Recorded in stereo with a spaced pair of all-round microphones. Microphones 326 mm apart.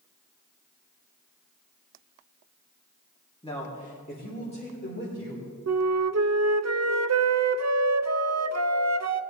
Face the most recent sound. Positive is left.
turn(degrees=-55)  # may be behind; listen again after turning